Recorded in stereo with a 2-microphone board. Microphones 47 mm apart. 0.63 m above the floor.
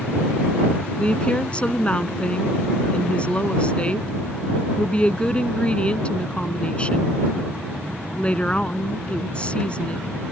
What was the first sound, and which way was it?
A woman speaking, 25° left (ahead or behind).